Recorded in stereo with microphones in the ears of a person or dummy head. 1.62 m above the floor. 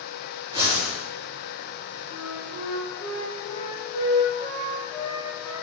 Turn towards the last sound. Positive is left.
turn(degrees=30)  # may be behind; listen again after turning